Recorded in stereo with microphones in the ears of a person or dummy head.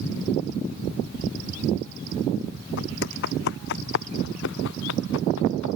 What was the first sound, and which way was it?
Footsteps, 50° left (ahead or behind).